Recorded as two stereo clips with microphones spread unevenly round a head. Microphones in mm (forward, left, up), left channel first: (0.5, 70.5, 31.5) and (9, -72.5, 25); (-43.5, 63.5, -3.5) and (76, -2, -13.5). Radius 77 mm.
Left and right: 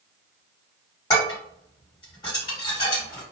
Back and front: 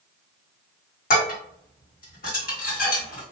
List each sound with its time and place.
1.1 s dishes clattering: 155° left, 1.8 m